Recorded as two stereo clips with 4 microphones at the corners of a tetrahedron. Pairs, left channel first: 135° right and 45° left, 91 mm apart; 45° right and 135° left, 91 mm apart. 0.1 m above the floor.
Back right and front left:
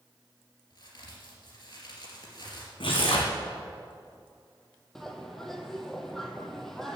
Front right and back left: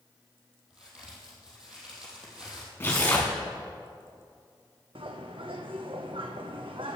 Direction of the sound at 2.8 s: 115° right.